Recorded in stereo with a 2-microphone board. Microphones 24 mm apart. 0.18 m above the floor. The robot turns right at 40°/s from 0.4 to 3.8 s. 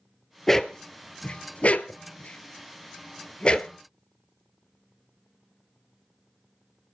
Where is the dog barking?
15° left (ahead or behind), 0.8 m; by 3.7 s 30° left (ahead or behind), 0.8 m.